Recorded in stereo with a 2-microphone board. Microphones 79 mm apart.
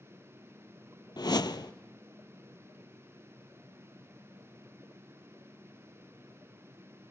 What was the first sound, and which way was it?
A whoosh, 65° left (ahead or behind).